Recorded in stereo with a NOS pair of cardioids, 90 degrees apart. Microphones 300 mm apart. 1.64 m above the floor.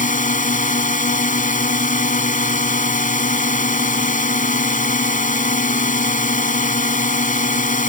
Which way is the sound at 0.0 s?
25° left.